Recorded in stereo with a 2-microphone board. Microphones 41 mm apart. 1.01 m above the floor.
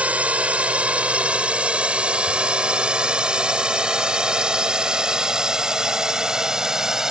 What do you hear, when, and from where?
0.0 s a drone: 35° right (ahead or behind); by 7.1 s 15° right (ahead or behind)